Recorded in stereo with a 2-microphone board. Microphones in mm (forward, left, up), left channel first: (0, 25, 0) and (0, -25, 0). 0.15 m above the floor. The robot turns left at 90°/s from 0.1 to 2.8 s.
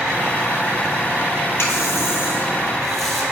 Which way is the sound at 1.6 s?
115° left.